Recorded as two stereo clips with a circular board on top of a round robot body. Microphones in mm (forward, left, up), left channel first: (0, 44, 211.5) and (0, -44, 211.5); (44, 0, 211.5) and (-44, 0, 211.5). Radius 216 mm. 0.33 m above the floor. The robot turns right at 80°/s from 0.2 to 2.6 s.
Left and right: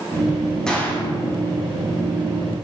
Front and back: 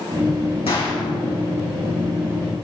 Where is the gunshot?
5° left, 5 m; by 1.0 s 35° left, 5 m.